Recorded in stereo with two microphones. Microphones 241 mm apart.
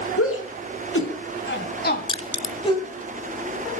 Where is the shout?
70° left (ahead or behind), 4 m; by 2.9 s 15° left (ahead or behind), 3 m.